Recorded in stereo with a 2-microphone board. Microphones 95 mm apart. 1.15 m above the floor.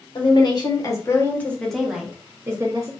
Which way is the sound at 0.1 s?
50° left (ahead or behind).